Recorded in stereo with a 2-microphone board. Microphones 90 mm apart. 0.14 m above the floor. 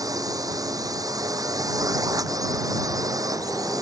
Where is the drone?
40° right (ahead or behind).